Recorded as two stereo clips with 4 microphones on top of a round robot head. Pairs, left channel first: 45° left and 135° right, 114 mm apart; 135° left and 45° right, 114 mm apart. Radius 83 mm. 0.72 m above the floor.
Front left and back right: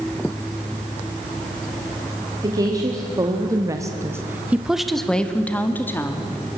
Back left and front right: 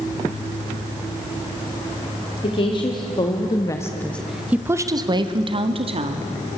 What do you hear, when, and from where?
2.4 s a woman speaking: 170° left, 2 m; by 6.3 s 20° right, 2 m